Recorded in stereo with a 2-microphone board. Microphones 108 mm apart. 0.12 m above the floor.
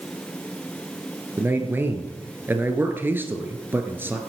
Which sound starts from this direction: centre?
A man speaking, at 1.4 s.